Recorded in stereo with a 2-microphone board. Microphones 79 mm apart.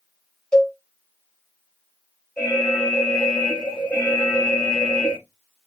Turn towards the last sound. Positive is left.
turn(degrees=10)  # may be behind; listen again after turning